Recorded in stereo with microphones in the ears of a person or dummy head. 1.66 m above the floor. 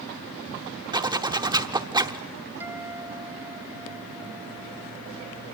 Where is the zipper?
20° right (ahead or behind), 0.8 m.